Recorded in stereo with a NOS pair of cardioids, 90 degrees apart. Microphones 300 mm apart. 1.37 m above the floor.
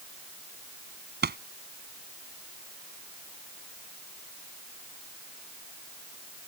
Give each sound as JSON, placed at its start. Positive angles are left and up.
{"t": 1.2, "sound": "a pop", "azimuth_deg": -35}